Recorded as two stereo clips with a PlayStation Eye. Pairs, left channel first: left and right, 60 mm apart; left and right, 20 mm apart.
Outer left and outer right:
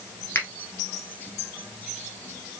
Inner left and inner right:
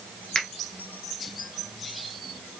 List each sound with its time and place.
0.3 s a finger snap: 45° left (ahead or behind), 1.3 m